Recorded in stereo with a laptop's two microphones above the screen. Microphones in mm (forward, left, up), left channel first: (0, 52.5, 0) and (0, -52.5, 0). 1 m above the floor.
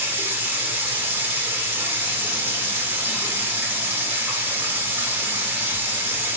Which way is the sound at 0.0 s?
20° right (ahead or behind).